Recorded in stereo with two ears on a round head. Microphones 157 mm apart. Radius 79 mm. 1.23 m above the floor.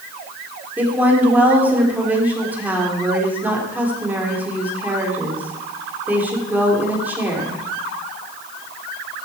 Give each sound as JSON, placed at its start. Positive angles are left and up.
{"t": 0.8, "sound": "a woman speaking", "side_deg": -10, "distance_m": 3.5}